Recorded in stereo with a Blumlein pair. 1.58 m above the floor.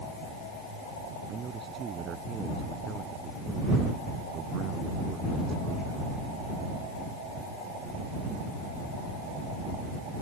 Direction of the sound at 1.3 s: 20° right.